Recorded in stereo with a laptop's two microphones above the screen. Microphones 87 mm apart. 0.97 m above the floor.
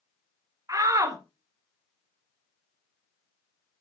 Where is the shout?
40° right (ahead or behind), 1.3 m.